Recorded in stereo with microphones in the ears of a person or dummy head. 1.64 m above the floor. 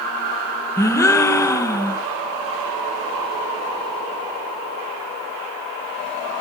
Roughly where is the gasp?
Centre.